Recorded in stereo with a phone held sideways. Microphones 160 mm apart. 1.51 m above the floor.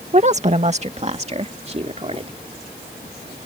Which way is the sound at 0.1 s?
45° right (ahead or behind).